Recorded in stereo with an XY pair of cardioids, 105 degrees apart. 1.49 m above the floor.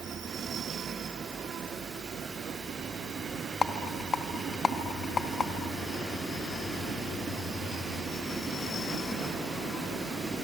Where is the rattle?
40° left, 1.9 m.